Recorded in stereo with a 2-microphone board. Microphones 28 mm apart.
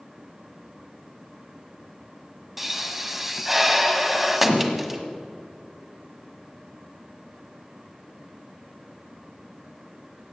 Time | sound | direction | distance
2.6 | a pop | 10° right (ahead or behind) | 1.3 m